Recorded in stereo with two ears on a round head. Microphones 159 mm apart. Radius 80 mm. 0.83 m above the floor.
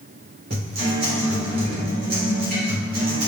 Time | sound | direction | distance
0.5 | a guitar | 55° right (ahead or behind) | 1.6 m